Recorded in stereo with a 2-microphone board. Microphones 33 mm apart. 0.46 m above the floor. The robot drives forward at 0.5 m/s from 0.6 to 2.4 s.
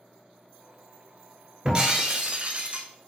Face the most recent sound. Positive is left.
turn(degrees=-45)  # may be behind; listen again after turning